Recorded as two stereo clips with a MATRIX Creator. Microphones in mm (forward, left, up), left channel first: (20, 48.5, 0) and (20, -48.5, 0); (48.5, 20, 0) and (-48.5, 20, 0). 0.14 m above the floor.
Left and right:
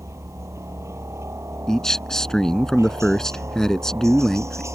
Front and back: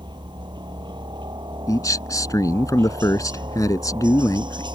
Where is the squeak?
No squeak in this recording.